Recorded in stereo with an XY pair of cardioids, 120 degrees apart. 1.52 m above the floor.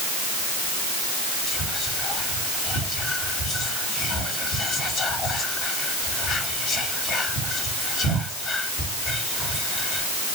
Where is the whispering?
60° left, 2.5 m.